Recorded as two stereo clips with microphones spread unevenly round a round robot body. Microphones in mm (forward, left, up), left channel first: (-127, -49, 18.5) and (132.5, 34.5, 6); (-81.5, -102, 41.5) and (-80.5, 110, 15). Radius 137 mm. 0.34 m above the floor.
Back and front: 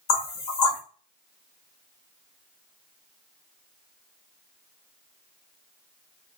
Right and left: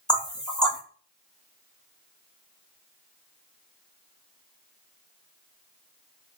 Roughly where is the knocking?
Behind.